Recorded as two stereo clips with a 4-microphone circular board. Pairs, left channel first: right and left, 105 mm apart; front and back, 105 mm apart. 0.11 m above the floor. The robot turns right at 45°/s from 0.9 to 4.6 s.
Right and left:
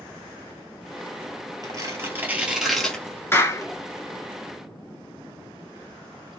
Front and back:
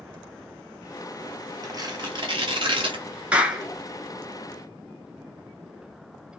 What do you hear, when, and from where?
1.6 s tearing paper: 130° left, 1.1 m; by 3.7 s 135° right, 1.1 m
3.3 s a clap: 120° right, 0.9 m; by 3.7 s 105° right, 0.9 m